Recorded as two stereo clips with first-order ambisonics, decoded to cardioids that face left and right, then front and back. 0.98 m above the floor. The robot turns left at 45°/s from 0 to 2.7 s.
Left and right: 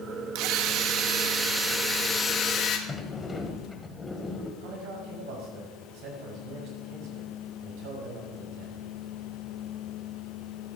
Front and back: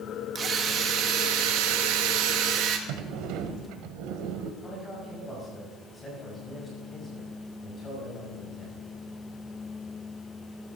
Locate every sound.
0.3 s a drill: 110° right, 1.6 m; by 2.8 s 145° left, 1.6 m
2.9 s a sliding door: 170° left, 1.3 m
4.6 s a man speaking: 75° right, 5.5 m